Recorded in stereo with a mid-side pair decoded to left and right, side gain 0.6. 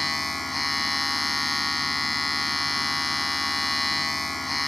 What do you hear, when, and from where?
0.0 s a machine running: 10° left